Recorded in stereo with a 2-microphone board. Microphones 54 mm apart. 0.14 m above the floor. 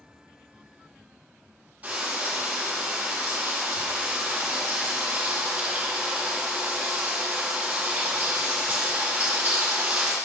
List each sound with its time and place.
1.8 s frying: 25° right (ahead or behind), 6 m